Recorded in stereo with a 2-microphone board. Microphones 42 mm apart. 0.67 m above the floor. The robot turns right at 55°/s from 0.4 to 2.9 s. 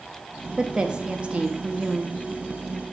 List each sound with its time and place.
0.6 s a woman speaking: 15° right (ahead or behind), 0.5 m; by 2.2 s 20° right (ahead or behind), 0.5 m